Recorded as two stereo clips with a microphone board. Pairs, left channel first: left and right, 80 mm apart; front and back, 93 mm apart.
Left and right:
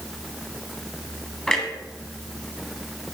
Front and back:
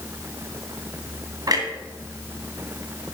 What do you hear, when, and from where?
1.5 s a clunk: 170° left, 1.8 m